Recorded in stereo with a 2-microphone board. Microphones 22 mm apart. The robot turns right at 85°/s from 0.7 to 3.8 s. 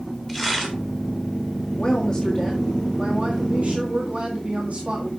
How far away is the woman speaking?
About 1.9 m.